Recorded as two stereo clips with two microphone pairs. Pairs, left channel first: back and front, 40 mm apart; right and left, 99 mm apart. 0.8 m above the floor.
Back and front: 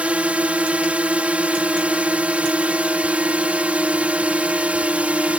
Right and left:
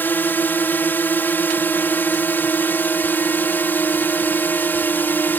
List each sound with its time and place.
0.0 s a drone: 30° right